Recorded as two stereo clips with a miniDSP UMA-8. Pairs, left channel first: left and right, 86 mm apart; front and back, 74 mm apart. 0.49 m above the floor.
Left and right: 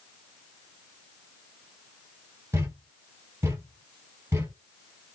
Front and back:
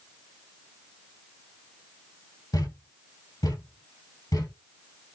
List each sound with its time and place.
2.5 s a thud: 30° right, 2.5 m